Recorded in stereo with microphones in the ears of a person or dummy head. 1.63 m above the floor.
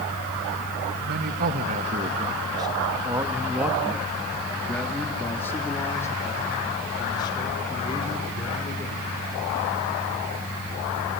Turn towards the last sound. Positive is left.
turn(degrees=25)  # may be behind; listen again after turning